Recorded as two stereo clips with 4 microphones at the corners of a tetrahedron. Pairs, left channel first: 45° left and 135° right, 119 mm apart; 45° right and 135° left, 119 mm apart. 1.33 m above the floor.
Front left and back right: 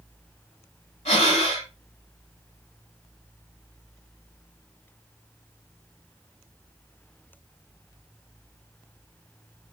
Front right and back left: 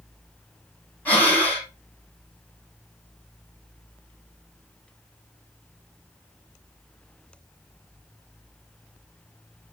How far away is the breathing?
About 3.5 m.